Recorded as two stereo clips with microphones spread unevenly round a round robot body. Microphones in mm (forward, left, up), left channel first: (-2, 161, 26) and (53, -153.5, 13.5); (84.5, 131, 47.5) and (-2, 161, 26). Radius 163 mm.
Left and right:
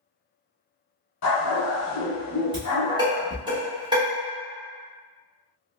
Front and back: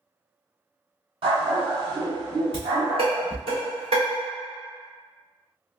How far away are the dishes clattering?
About 1.7 m.